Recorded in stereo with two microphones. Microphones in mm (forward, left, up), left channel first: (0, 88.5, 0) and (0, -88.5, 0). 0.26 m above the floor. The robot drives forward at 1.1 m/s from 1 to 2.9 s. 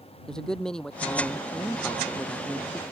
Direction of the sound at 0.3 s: 5° left (ahead or behind).